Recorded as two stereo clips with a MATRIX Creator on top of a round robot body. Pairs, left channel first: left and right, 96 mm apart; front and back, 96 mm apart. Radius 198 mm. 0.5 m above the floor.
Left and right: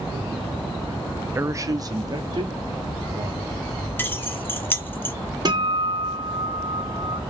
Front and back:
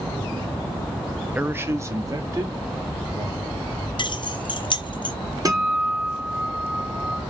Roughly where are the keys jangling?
Ahead left.